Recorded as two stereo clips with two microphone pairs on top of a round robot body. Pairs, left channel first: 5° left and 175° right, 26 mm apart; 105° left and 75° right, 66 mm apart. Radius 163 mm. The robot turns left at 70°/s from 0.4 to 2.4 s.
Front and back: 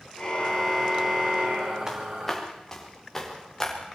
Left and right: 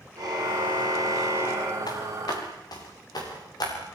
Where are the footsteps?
115° left, 6.5 m; by 3.7 s 85° left, 7.5 m.